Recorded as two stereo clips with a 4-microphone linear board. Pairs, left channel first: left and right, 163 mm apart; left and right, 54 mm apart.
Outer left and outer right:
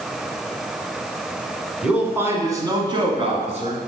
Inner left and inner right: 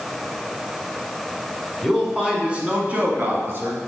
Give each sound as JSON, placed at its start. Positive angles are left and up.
{"t": 1.8, "sound": "a man speaking", "side_deg": -5, "distance_m": 1.6}